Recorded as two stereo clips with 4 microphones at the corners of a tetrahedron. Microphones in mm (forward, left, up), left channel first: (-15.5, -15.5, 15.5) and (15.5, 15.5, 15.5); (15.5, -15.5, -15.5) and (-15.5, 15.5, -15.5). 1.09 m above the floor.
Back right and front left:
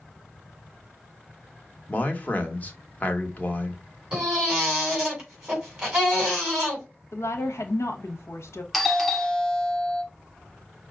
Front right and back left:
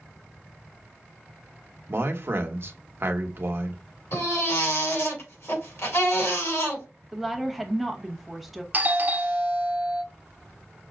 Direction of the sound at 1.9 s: 170° left.